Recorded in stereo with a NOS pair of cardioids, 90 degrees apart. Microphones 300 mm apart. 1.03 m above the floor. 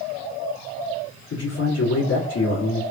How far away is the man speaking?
About 1.6 m.